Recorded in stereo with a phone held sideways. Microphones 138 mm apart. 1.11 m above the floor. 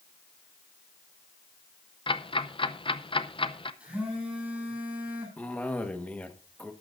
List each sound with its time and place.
2.1 s ticking: 40° left (ahead or behind), 0.6 m
3.8 s a phone buzzing: 5° right (ahead or behind), 9 m
5.4 s a cough: 10° left (ahead or behind), 1.3 m